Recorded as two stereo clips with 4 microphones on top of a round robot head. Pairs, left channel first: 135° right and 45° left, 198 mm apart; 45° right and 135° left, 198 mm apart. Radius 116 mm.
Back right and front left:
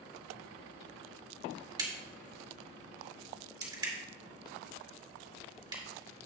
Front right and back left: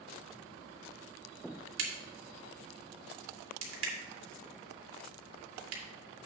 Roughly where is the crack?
Behind left.